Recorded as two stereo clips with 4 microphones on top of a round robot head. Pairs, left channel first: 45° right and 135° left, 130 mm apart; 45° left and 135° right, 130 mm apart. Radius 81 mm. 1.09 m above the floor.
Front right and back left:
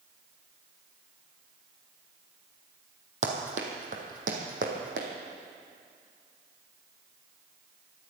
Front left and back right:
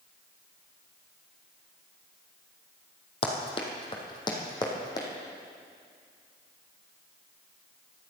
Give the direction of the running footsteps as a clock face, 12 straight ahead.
9 o'clock.